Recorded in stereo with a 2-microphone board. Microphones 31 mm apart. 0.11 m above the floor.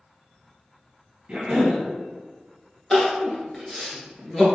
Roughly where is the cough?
Right.